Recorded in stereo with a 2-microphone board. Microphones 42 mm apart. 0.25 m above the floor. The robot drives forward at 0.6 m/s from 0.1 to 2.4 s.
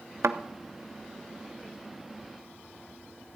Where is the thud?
90° right, 0.5 m; by 0.4 s 85° right, 0.5 m.